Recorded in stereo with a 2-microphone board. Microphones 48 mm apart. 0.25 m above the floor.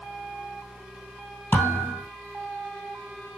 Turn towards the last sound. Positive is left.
turn(degrees=40)  # may be behind; listen again after turning